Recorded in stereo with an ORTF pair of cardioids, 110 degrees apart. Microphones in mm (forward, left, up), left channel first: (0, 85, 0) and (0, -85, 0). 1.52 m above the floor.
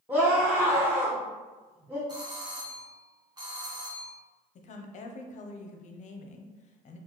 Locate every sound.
0.1 s a scream: 10° right, 1.0 m
2.1 s a doorbell: 25° right, 1.1 m
4.5 s a woman speaking: 45° left, 0.6 m